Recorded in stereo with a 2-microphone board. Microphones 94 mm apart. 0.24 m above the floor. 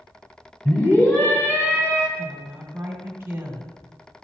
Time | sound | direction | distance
0.7 | a scream | 15° left (ahead or behind) | 1.7 m
2.2 | a woman speaking | 25° right (ahead or behind) | 1.3 m